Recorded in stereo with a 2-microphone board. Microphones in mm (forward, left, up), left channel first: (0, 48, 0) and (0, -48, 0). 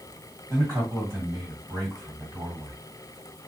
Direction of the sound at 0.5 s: 40° right (ahead or behind).